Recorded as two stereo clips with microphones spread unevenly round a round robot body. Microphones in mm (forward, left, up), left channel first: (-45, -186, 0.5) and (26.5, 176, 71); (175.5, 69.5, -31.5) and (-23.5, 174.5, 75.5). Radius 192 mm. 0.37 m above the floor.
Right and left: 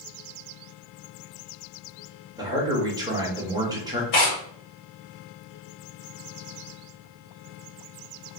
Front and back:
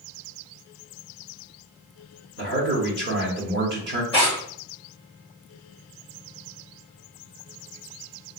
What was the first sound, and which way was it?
A man speaking, 170° left.